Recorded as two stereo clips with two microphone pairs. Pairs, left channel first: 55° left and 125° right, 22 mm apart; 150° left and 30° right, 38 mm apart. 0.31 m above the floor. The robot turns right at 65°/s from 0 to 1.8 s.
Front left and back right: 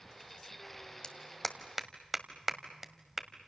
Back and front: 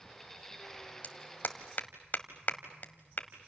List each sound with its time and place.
1.0 s a clap: 115° left, 1.6 m; by 3.5 s 165° left, 1.6 m